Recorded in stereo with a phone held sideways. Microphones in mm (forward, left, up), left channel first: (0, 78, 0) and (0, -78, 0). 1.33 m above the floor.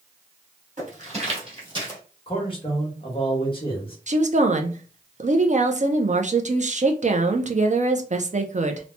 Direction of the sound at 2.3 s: 35° left (ahead or behind).